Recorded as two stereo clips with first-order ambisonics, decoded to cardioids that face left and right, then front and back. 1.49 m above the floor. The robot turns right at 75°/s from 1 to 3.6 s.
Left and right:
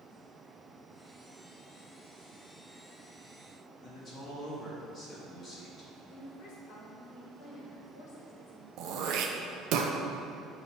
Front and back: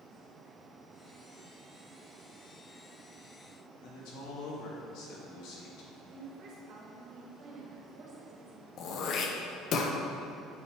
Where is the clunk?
No clunk in this recording.